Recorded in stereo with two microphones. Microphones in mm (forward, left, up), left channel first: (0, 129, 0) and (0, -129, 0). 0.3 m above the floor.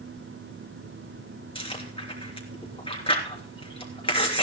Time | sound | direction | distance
1.6 | chewing | 20° left (ahead or behind) | 3 m